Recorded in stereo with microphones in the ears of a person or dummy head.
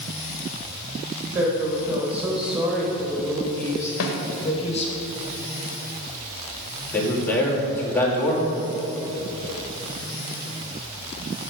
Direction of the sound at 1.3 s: 40° right (ahead or behind).